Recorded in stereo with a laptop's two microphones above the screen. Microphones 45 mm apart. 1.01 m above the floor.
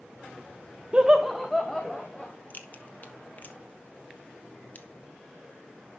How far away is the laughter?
About 0.6 m.